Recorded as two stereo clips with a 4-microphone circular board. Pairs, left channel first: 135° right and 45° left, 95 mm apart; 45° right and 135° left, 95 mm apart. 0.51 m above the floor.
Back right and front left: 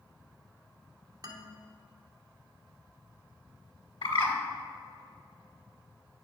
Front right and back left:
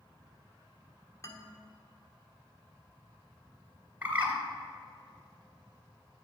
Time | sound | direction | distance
1.2 | a man speaking | 5° left | 2 m
4.0 | a bird | 155° right | 2 m